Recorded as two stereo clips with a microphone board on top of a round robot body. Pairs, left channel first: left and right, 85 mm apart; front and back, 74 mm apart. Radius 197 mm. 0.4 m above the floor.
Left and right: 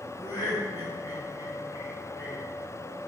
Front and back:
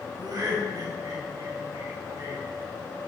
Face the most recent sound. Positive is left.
turn(degrees=140)